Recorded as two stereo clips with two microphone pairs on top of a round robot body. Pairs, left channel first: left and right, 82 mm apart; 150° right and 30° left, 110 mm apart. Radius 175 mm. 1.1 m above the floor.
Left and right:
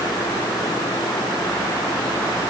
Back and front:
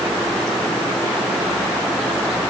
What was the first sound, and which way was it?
Only background noise.